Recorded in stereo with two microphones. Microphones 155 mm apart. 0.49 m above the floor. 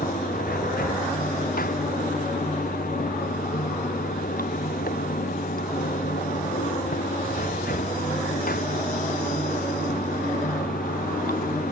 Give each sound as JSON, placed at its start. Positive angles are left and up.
{"t": 0.0, "sound": "running water", "side_deg": 75}